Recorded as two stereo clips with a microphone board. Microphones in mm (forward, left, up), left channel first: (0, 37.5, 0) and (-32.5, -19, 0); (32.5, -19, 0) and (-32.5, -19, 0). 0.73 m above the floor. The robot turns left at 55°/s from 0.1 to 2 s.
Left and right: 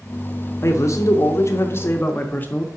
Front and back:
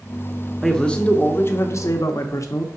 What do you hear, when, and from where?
0.6 s a man speaking: 85° left, 0.7 m; by 2.7 s 10° left, 0.7 m